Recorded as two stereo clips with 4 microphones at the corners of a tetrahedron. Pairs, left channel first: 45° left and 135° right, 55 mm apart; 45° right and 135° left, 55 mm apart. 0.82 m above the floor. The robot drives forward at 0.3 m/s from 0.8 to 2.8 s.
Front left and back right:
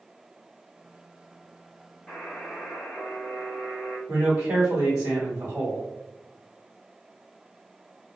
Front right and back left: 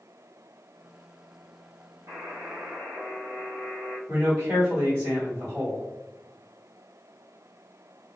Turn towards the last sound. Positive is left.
turn(degrees=-165)